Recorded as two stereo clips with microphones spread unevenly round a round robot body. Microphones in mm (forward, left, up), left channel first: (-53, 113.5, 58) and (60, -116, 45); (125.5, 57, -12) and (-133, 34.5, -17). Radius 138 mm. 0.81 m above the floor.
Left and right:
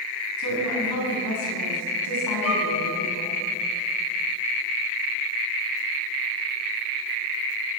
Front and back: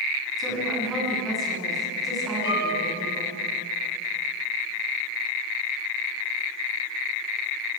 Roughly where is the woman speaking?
Left.